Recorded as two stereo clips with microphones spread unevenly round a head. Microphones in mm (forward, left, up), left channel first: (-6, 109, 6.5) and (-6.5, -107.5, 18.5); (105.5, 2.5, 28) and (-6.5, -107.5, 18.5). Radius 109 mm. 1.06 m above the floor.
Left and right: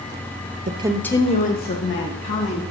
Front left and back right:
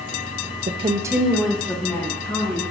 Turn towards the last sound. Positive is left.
turn(degrees=120)